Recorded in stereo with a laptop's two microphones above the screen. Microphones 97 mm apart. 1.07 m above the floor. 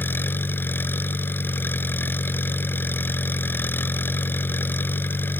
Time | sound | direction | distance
0.0 | an engine running | 20° left (ahead or behind) | ?